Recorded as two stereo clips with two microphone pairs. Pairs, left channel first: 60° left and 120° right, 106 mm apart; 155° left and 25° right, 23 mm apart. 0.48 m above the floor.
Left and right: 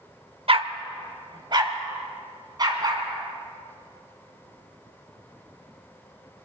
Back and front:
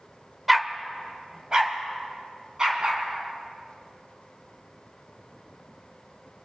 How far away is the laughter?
No laughter in this recording.